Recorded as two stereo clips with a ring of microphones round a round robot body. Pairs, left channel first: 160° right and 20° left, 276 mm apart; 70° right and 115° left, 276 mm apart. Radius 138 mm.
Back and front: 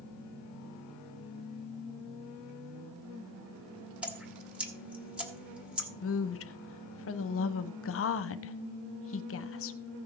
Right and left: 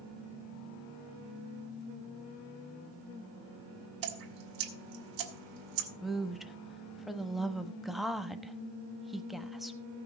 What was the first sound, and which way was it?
Dripping, 110° left.